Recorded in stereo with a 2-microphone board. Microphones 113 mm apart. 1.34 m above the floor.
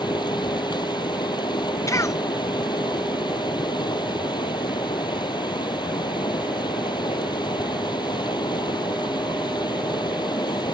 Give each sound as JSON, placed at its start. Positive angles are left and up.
{"t": 0.0, "sound": "running water", "side_deg": 40}
{"t": 1.9, "sound": "a cough", "side_deg": 25}